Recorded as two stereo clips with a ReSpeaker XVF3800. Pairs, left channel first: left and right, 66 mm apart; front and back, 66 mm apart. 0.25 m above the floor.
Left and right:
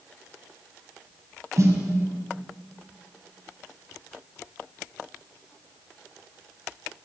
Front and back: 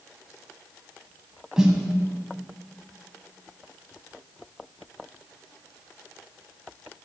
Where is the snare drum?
105° right, 1.1 m.